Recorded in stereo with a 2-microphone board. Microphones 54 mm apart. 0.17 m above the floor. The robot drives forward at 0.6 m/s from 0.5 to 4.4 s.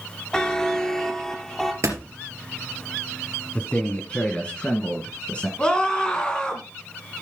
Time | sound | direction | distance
0.3 | a buzzer | 15° left (ahead or behind) | 0.8 m
1.8 | a door slam | 70° right (ahead or behind) | 3 m
3.5 | a man speaking | 25° left (ahead or behind) | 1.3 m
5.6 | a scream | 15° left (ahead or behind) | 2.0 m